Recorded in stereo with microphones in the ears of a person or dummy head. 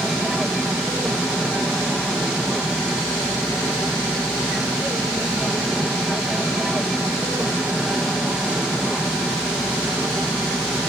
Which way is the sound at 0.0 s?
5° right (ahead or behind).